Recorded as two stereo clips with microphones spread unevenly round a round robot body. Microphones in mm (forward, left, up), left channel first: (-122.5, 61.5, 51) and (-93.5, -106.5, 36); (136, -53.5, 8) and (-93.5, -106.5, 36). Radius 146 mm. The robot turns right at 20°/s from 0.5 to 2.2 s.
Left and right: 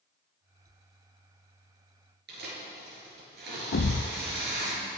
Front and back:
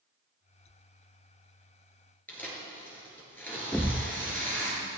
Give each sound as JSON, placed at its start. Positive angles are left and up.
{"t": 2.3, "sound": "tearing paper", "azimuth_deg": -70, "distance_m": 5.0}
{"t": 3.7, "sound": "a thud", "azimuth_deg": 105, "distance_m": 0.6}